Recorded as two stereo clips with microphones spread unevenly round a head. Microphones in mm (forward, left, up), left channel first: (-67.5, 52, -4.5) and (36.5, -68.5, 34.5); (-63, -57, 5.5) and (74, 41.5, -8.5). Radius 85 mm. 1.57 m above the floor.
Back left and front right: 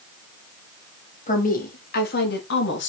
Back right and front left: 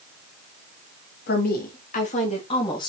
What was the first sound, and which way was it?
A woman speaking, 175° left.